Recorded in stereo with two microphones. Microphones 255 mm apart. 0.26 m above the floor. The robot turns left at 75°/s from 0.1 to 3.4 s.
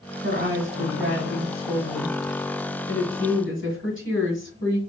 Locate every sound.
0.2 s a woman speaking: 45° right, 1.7 m; by 4.8 s 75° left, 1.7 m